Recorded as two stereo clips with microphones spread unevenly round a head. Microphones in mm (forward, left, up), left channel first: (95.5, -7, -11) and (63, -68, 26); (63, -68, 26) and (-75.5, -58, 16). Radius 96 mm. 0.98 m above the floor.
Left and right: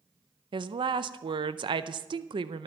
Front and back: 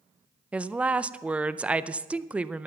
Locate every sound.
0.5 s a woman speaking: 110° right, 0.5 m